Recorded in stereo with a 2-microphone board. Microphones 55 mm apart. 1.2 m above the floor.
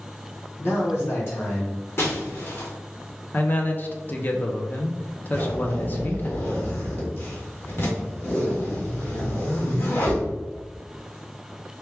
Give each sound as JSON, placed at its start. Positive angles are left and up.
{"t": 0.6, "sound": "a man speaking", "side_deg": 50, "distance_m": 1.1}
{"t": 2.0, "sound": "breaking glass", "side_deg": 50, "distance_m": 1.3}
{"t": 3.3, "sound": "a man speaking", "side_deg": 35, "distance_m": 0.6}
{"t": 5.3, "sound": "a zipper", "side_deg": 50, "distance_m": 1.6}